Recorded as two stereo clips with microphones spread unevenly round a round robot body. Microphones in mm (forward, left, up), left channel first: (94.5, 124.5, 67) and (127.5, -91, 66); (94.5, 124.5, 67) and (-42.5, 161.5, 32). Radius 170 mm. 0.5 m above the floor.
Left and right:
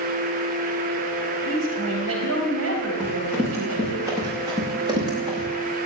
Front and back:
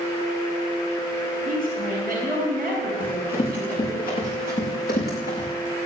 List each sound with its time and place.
1.4 s a woman speaking: 105° right, 3.5 m
3.0 s running footsteps: straight ahead, 7.5 m; by 5.5 s 10° right, 6.5 m